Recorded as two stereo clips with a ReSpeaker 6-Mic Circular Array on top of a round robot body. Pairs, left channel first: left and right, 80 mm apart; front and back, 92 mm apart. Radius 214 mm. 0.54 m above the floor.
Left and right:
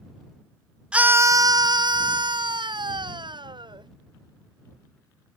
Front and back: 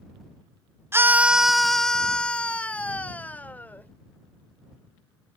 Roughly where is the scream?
Behind right.